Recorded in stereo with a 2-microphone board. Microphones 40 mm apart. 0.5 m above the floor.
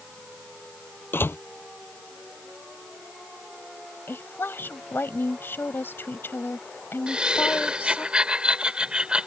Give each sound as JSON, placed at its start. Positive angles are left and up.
{"t": 1.1, "sound": "a door slam", "side_deg": 65}
{"t": 4.1, "sound": "a woman speaking", "side_deg": 70}
{"t": 7.1, "sound": "laughter", "side_deg": -25}